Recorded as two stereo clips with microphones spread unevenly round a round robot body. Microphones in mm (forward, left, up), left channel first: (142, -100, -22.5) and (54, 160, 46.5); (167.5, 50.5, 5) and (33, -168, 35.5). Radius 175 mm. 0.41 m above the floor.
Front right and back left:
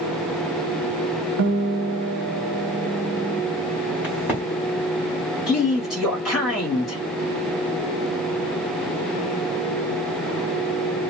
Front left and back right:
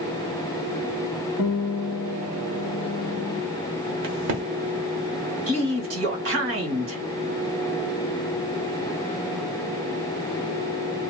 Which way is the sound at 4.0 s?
155° right.